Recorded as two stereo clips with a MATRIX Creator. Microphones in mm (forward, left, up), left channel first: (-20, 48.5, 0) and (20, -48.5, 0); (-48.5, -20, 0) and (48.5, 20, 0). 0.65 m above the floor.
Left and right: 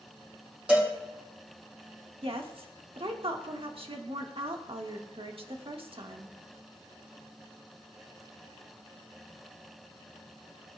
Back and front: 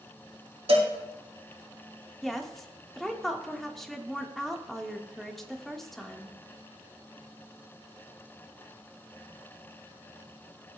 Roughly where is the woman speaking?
Right.